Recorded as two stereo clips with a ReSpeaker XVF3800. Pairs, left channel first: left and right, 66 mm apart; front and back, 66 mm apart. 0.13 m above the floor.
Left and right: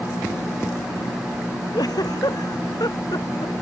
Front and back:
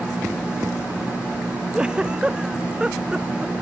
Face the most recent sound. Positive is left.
turn(degrees=100)